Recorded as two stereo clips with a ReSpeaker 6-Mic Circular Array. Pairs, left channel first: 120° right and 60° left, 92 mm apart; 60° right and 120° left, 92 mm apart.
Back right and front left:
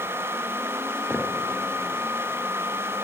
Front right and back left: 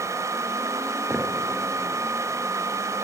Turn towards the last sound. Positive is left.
turn(degrees=180)